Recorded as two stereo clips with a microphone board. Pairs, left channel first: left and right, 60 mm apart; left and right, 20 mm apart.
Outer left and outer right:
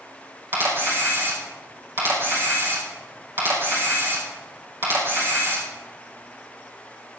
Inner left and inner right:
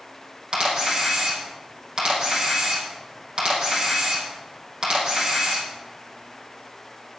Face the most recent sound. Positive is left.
turn(degrees=-40)  # may be behind; listen again after turning